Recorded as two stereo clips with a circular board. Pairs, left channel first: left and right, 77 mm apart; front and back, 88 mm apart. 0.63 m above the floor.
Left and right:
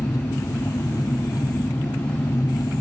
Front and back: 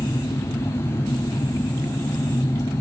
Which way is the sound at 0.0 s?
55° left.